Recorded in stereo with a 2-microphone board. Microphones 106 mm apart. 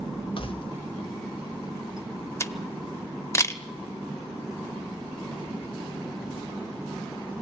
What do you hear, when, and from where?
0.4 s keys jangling: 55° left (ahead or behind), 1.4 m; by 2.3 s 35° left (ahead or behind), 3 m
2.4 s a camera shutter: 25° left (ahead or behind), 1.1 m